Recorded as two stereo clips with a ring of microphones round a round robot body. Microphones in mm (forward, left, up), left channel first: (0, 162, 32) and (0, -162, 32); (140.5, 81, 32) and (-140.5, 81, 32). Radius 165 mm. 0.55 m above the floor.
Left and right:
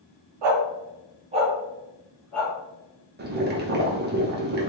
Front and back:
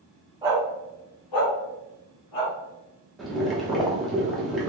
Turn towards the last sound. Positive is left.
turn(degrees=-90)